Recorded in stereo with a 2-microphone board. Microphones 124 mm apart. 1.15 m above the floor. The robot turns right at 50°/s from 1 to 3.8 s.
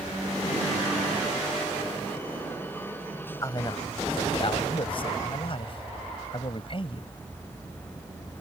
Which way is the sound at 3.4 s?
25° left (ahead or behind).